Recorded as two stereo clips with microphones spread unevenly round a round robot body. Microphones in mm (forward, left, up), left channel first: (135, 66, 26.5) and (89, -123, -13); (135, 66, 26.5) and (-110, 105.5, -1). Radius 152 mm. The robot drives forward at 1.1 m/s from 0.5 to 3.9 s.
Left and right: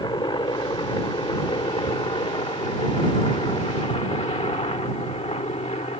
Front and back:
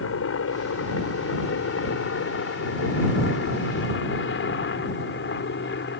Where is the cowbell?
No cowbell in this recording.